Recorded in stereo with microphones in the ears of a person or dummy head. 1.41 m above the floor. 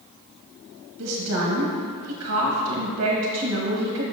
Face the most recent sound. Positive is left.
turn(degrees=-85)